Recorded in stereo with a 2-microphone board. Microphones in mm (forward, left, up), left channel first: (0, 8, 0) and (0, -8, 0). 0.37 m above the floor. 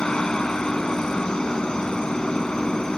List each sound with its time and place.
0.0 s a helicopter: 65° left (ahead or behind)